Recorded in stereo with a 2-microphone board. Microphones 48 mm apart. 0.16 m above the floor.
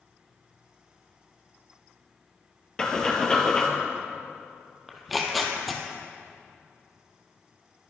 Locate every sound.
2.8 s breathing: 15° left (ahead or behind), 1.8 m
4.9 s tearing paper: centre (ahead or behind), 1.5 m